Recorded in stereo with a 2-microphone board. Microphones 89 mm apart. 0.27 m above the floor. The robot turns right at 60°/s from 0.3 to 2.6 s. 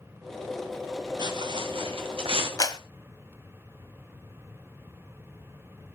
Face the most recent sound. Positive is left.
turn(degrees=45)  # may be behind; listen again after turning